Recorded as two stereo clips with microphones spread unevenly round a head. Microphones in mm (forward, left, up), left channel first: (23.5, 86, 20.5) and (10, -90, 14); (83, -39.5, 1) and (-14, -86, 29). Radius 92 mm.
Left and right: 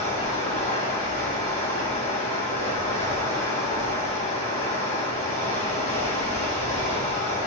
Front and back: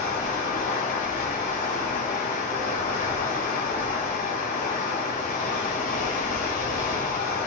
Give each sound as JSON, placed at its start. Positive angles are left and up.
{"t": 0.0, "sound": "running water", "azimuth_deg": 30, "distance_m": 2.5}